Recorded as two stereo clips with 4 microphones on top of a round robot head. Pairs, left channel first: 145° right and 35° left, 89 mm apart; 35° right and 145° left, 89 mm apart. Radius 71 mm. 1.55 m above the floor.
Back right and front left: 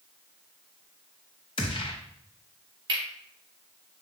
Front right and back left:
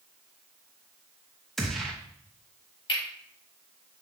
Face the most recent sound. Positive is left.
turn(degrees=0)